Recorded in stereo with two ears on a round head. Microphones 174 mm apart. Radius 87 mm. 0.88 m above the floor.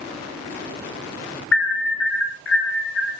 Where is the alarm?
65° left (ahead or behind), 5.5 m.